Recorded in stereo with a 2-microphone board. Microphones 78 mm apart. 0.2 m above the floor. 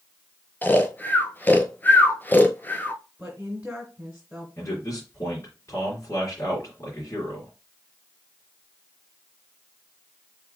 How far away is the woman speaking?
About 1.6 m.